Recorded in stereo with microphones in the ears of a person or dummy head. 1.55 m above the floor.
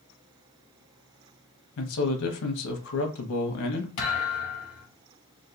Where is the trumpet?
No trumpet in this recording.